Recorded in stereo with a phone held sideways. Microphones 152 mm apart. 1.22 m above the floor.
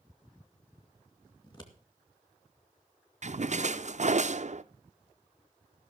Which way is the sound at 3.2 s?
55° right (ahead or behind).